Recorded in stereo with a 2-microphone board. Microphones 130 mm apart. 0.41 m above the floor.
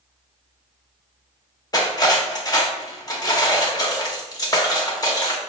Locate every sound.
1.7 s cutlery clinking: 30° left (ahead or behind), 0.6 m